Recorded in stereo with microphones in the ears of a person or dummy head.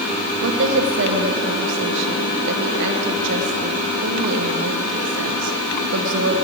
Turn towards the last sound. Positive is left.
turn(degrees=-60)  # may be behind; listen again after turning